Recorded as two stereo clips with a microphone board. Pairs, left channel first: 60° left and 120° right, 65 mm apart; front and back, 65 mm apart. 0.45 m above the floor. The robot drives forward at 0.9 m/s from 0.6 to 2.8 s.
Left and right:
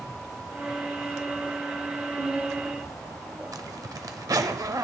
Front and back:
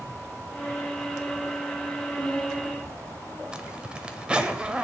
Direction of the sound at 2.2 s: 95° right.